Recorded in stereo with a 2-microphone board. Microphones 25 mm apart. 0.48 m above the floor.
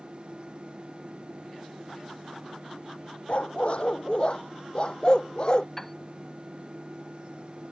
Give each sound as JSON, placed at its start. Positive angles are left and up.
{"t": 3.3, "sound": "a dog barking", "side_deg": 55}
{"t": 5.8, "sound": "a piano", "side_deg": 15}